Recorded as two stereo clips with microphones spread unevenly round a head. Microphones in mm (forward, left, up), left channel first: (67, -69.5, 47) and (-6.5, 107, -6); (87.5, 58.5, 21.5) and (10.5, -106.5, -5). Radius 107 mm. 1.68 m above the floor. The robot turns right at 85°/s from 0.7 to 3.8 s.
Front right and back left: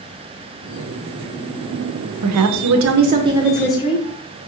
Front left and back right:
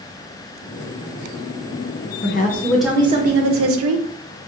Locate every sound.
2.2 s a woman speaking: 100° left, 0.5 m; by 4.5 s 125° right, 0.5 m